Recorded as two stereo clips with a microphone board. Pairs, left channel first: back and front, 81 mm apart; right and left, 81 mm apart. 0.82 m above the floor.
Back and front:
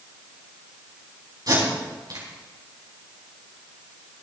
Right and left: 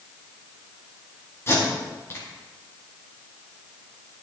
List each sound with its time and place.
1.5 s tape being pulled: 35° right, 5 m